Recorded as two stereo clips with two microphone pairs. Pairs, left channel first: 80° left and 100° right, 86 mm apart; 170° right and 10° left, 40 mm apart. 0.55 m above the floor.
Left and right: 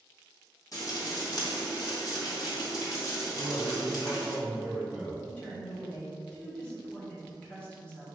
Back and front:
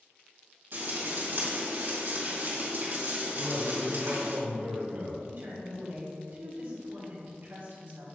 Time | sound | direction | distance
0.7 | frying | 40° left | 2 m
3.4 | a man speaking | 20° right | 2 m
5.2 | a woman speaking | 10° left | 1.9 m